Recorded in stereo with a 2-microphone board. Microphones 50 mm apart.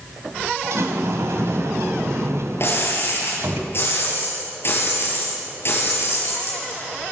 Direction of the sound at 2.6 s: 55° left (ahead or behind).